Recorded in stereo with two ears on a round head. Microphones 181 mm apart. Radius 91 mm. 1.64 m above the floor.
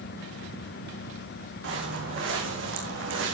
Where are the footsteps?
60° right (ahead or behind), 4 m; by 3.4 s 65° right (ahead or behind), 4 m.